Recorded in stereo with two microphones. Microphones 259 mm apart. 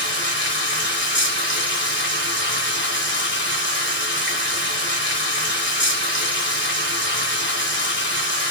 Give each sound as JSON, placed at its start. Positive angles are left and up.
{"t": 0.0, "sound": "running water", "side_deg": 45, "distance_m": 1.0}